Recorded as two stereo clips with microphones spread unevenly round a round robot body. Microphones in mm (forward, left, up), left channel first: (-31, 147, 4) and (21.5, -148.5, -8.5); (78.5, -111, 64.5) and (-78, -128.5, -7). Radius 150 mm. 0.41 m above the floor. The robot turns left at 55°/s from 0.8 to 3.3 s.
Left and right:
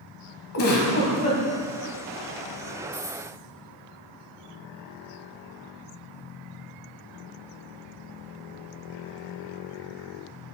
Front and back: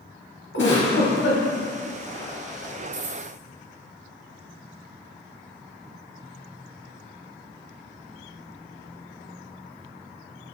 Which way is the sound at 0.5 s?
55° left.